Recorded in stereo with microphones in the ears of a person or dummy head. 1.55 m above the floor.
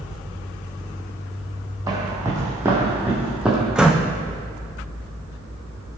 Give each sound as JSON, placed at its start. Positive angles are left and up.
{"t": 1.9, "sound": "footsteps", "side_deg": -25, "distance_m": 3.0}
{"t": 3.8, "sound": "a door slam", "side_deg": -5, "distance_m": 1.1}